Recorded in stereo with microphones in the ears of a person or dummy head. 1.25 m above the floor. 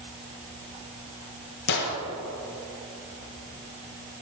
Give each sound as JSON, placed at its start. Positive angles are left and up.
{"t": 1.7, "sound": "a gunshot", "side_deg": 60, "distance_m": 1.5}